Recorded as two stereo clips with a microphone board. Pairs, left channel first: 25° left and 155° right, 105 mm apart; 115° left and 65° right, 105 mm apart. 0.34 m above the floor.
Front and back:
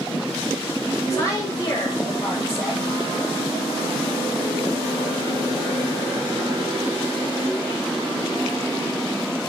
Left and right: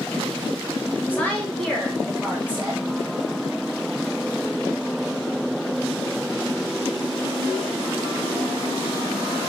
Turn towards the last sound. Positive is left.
turn(degrees=-15)